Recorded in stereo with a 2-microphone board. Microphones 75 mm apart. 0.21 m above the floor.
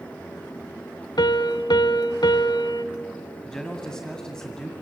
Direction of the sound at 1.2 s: 70° left (ahead or behind).